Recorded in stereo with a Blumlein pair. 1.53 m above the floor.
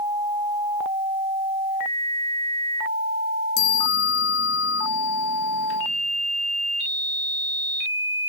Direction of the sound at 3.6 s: 45° left.